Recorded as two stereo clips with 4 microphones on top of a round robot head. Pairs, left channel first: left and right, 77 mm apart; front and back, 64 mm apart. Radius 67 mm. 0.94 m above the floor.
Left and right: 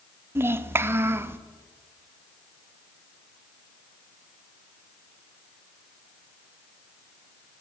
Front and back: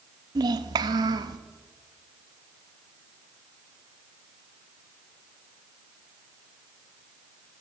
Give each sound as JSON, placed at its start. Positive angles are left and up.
{"t": 0.3, "sound": "a child speaking", "azimuth_deg": -150, "distance_m": 0.7}